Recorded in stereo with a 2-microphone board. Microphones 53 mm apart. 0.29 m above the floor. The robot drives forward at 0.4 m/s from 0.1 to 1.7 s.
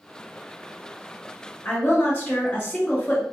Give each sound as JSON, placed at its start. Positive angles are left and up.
{"t": 1.6, "sound": "a woman speaking", "side_deg": 30, "distance_m": 1.4}